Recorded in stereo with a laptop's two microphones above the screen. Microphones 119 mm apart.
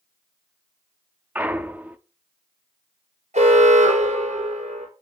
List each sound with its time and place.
1.4 s a clunk: 15° right (ahead or behind), 0.6 m
3.3 s an alarm: 80° right, 4 m